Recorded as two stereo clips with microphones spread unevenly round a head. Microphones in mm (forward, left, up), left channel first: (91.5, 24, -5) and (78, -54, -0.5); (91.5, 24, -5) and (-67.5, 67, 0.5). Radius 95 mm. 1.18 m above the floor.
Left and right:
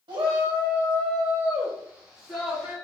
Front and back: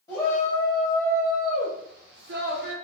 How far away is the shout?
About 1.0 m.